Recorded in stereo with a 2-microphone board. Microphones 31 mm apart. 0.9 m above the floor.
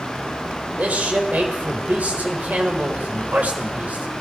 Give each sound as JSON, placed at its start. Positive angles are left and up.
{"t": 0.8, "sound": "a man speaking", "side_deg": -50, "distance_m": 4.0}